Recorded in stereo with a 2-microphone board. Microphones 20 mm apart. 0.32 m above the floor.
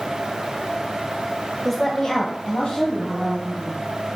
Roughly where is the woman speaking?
Centre.